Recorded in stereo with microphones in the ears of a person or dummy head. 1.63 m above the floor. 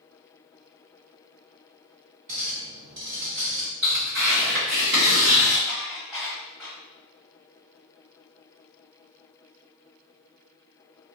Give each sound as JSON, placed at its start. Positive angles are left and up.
{"t": 2.3, "sound": "a clink", "side_deg": -40, "distance_m": 0.9}
{"t": 3.8, "sound": "tearing paper", "side_deg": -45, "distance_m": 1.4}
{"t": 5.7, "sound": "dishes clattering", "side_deg": 0, "distance_m": 1.1}